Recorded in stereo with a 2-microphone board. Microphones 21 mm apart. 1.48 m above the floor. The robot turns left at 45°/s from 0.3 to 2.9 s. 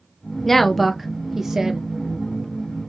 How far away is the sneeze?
No sneeze in this recording.